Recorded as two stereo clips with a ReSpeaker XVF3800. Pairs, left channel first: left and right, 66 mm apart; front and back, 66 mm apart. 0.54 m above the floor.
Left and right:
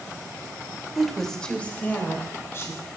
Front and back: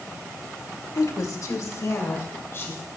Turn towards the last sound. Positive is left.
turn(degrees=50)